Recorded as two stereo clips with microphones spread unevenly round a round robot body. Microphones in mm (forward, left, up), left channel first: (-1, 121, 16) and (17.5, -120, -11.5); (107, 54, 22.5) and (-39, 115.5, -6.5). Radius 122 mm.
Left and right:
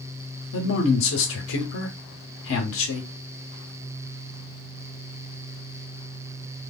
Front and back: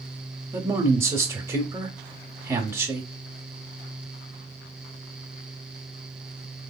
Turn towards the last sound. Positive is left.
turn(degrees=100)